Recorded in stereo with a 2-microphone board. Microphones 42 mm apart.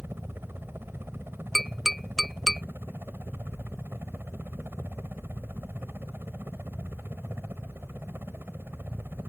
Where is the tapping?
5° left (ahead or behind).